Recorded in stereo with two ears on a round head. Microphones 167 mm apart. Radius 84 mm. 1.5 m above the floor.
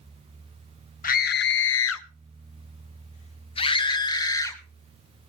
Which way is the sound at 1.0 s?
45° left (ahead or behind).